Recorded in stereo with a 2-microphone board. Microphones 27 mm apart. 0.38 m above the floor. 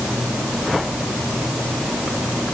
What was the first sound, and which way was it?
Only background noise.